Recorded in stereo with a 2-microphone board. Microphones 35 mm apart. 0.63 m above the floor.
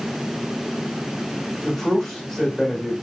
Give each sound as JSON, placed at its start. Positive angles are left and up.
{"t": 1.6, "sound": "a man speaking", "side_deg": 5, "distance_m": 1.1}